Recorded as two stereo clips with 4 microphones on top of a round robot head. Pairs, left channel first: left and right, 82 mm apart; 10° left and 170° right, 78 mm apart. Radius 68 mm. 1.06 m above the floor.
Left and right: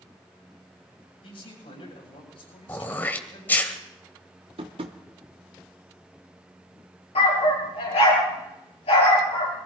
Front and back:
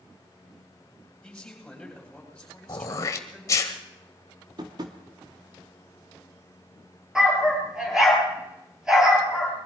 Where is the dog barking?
105° left, 6 m.